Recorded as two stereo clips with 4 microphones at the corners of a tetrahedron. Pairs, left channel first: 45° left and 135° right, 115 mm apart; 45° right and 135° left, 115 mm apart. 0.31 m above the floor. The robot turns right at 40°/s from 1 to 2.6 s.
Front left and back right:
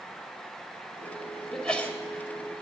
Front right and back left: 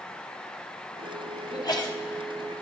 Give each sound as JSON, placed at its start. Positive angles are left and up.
{"t": 1.5, "sound": "a sneeze", "azimuth_deg": -40, "distance_m": 1.4}